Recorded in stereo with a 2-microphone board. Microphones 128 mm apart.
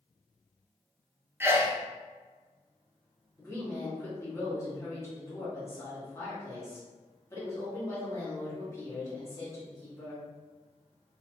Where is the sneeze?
15° right (ahead or behind), 0.7 m.